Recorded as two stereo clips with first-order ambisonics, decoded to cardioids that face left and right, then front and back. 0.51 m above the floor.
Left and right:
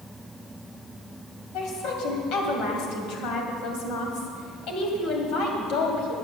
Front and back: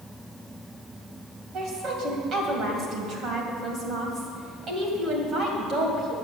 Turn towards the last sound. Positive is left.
turn(degrees=120)